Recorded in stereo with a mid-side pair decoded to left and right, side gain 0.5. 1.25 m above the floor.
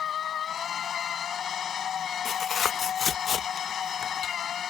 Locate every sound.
0.0 s a machine running: 50° left
2.2 s tearing paper: 45° left